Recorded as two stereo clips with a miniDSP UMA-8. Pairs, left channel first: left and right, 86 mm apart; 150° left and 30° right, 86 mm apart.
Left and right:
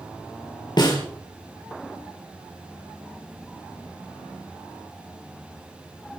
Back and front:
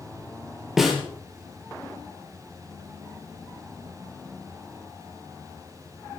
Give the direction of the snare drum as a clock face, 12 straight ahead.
10 o'clock.